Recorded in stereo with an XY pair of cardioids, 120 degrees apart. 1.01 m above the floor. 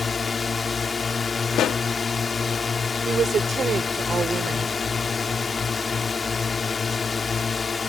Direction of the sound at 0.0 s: 25° left.